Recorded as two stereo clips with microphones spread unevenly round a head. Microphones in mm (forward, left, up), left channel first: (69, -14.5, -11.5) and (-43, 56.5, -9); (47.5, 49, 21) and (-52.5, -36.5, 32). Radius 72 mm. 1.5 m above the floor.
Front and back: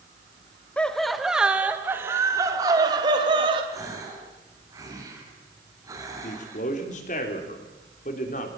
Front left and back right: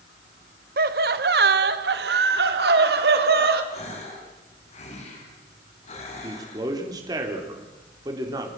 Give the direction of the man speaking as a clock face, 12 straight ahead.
3 o'clock.